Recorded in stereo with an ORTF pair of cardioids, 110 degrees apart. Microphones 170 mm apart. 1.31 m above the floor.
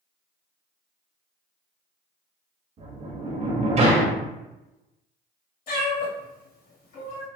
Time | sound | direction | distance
2.8 | a sliding door | 40° right | 1.1 m
5.7 | a cat meowing | 60° left | 1.4 m